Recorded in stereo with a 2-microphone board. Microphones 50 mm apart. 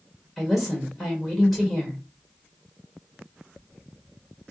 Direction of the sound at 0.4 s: 5° right (ahead or behind).